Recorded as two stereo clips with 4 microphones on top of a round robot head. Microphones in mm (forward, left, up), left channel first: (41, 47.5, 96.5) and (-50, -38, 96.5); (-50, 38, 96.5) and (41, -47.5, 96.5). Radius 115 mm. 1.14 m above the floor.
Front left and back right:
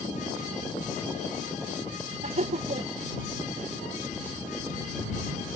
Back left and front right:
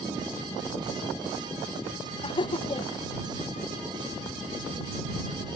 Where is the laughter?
170° right.